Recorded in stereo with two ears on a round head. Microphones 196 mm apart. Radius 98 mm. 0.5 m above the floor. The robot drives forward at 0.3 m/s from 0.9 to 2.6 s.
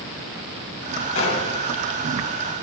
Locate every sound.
1.1 s a gunshot: 75° left (ahead or behind), 3 m